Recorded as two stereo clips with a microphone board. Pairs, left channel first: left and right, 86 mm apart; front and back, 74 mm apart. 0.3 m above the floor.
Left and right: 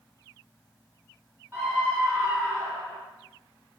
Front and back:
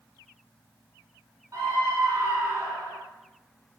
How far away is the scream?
About 4 m.